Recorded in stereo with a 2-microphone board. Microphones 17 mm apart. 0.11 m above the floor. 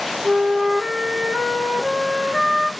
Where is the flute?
45° right (ahead or behind), 0.8 m.